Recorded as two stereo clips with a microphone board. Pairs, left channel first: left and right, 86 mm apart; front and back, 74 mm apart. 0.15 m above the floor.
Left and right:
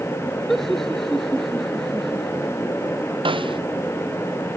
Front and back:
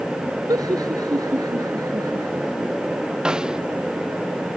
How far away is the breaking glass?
I don't hear breaking glass.